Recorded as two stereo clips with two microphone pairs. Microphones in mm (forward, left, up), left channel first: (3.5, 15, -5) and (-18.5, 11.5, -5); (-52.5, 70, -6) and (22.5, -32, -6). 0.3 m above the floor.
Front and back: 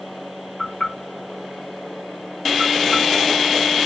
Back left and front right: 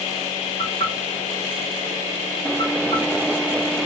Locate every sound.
0.6 s knocking: 75° left, 6 m